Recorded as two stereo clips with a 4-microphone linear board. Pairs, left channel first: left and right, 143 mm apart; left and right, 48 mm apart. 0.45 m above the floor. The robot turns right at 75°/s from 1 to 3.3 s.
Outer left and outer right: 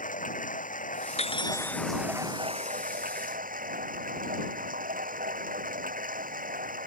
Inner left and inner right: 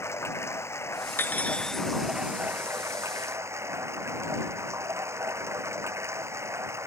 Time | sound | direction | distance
0.0 | running water | 110° left | ?
1.2 | cutlery clinking | 130° left | ?